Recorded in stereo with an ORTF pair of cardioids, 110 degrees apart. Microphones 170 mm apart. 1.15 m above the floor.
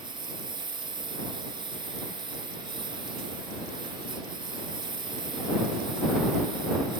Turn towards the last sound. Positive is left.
turn(degrees=-25)